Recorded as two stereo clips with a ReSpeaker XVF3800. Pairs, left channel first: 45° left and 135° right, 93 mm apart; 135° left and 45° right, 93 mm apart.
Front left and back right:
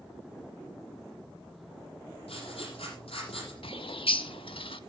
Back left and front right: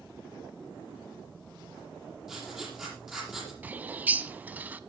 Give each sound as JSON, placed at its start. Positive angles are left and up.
{"t": 2.3, "sound": "writing", "azimuth_deg": 40, "distance_m": 7.5}
{"t": 3.6, "sound": "a bird", "azimuth_deg": 25, "distance_m": 0.7}